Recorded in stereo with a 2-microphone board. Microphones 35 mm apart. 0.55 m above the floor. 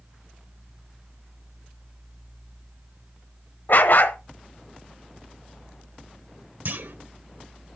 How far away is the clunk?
About 0.7 m.